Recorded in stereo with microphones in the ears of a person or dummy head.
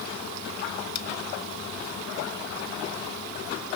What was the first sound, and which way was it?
Only background noise.